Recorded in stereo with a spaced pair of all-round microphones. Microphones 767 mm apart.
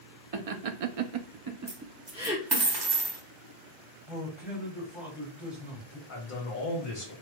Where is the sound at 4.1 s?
Centre (ahead or behind), 2.5 m.